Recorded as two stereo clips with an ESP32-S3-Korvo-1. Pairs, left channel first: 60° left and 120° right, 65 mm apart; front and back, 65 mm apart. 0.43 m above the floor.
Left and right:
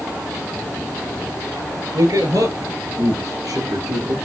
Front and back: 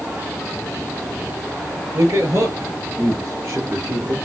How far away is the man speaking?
About 7.5 m.